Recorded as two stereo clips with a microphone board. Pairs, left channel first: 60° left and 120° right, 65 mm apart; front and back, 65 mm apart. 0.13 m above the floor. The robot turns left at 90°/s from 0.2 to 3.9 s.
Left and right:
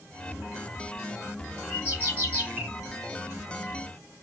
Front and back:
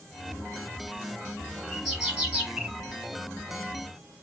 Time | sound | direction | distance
1.7 | a bird | 75° right | 1.8 m